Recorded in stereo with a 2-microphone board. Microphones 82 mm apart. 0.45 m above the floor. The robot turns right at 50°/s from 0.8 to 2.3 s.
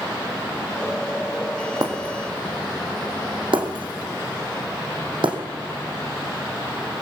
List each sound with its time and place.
1.8 s breaking glass: 55° right (ahead or behind), 2.5 m; by 5.4 s 75° right (ahead or behind), 2.5 m